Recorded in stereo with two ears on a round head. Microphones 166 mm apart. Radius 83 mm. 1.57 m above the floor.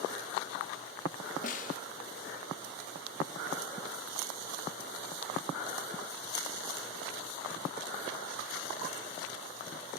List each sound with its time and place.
1.4 s a snare drum: 45° left (ahead or behind), 1.6 m